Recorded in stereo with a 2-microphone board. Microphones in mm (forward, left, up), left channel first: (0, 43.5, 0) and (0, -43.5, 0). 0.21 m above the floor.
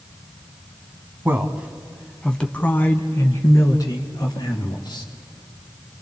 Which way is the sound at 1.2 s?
25° right (ahead or behind).